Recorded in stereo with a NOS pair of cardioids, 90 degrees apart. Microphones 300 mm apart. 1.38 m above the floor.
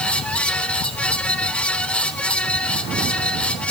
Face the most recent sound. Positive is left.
turn(degrees=5)